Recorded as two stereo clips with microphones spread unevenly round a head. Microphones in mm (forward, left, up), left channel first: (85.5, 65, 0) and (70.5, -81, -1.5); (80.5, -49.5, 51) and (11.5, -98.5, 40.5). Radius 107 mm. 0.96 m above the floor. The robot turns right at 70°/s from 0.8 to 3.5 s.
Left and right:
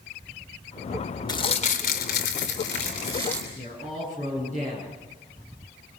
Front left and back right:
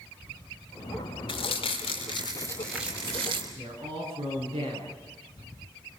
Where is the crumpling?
25° left, 3.5 m; by 3.5 s 175° left, 3.5 m.